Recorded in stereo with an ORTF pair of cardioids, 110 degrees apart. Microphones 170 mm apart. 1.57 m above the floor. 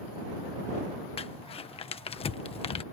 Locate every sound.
1.2 s crumpling: 35° left